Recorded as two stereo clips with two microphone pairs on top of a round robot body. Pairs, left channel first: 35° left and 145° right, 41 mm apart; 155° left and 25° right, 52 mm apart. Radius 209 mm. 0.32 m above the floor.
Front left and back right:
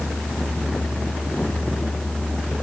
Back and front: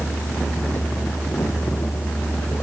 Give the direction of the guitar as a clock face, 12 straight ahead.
I don't hear a guitar.